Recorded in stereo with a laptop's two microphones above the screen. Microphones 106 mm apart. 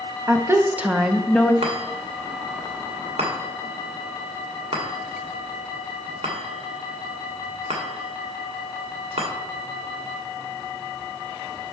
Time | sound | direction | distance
0.3 | a woman speaking | 30° right (ahead or behind) | 0.9 m
1.6 | a chime | 75° right (ahead or behind) | 1.5 m